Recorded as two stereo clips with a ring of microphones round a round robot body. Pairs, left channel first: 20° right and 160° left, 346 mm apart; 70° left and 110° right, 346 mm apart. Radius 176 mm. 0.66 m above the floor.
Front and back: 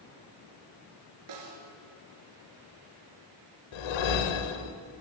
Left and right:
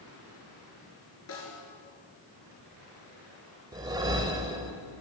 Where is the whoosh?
35° right, 0.9 m.